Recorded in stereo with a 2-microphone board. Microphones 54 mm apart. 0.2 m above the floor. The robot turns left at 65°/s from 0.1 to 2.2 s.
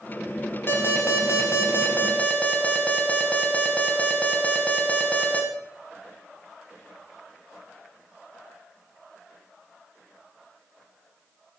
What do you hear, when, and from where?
0.7 s an alarm: 130° left, 1.6 m; by 5.4 s 30° left, 1.6 m